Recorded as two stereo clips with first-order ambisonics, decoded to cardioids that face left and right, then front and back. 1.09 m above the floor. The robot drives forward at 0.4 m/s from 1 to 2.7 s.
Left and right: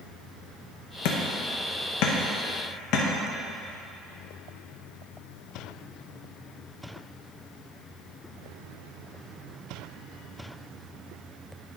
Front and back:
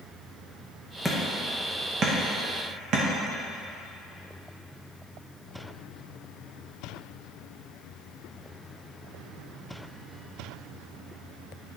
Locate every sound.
1.1 s hammering: 95° left, 0.8 m; by 3.0 s 130° left, 1.1 m